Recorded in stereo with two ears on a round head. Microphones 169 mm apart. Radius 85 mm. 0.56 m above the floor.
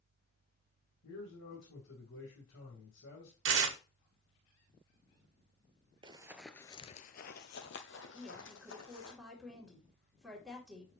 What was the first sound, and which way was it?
A man speaking, 65° left (ahead or behind).